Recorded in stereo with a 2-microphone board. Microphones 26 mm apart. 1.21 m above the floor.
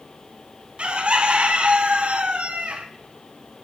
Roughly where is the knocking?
I don't hear knocking.